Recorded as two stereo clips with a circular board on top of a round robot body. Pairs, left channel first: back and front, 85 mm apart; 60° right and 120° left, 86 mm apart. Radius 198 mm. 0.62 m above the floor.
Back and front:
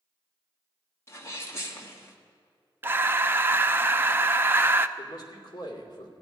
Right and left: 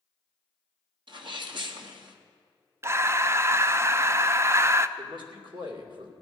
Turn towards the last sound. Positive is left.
turn(degrees=140)